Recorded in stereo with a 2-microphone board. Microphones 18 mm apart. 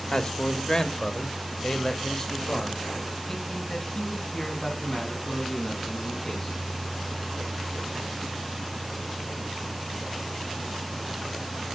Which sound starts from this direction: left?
A man speaking, at 0.1 s.